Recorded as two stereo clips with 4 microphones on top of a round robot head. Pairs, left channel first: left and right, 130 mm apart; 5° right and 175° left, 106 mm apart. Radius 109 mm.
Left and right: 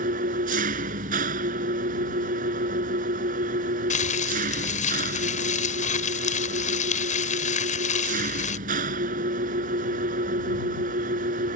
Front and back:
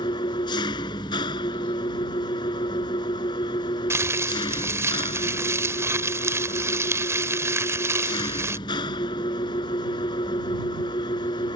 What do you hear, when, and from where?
0.0 s an engine running: 60° right
3.9 s crumpling: 110° left